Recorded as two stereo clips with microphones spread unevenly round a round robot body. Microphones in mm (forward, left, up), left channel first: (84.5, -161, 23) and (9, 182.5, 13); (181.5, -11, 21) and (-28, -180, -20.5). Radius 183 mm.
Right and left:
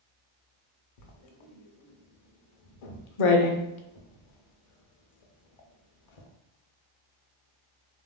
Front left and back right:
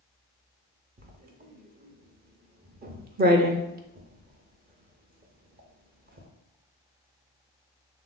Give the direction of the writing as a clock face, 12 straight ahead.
3 o'clock.